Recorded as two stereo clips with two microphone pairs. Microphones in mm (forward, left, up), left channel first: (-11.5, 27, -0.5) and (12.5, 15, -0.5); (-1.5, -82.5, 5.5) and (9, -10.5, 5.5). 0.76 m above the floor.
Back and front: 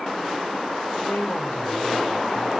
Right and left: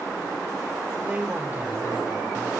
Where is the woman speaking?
145° left, 3.5 m.